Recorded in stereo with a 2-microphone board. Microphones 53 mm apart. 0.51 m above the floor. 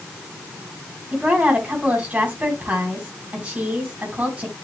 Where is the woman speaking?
30° right (ahead or behind), 3.5 m.